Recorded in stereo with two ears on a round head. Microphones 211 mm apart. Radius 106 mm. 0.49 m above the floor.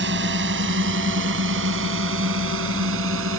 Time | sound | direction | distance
0.0 | a drone | 50° right (ahead or behind) | ?